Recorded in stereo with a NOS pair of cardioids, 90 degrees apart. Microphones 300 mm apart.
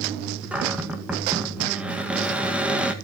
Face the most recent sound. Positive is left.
turn(degrees=-5)